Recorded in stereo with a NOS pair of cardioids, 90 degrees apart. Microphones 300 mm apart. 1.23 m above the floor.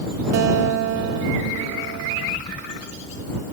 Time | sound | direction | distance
0.3 | a guitar | 70° right | ?